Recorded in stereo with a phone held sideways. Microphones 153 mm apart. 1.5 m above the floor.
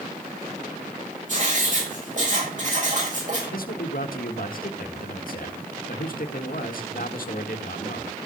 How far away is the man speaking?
About 1.7 m.